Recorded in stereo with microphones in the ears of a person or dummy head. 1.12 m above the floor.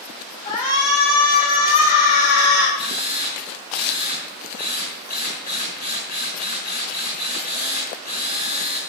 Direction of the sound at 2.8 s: 40° left (ahead or behind).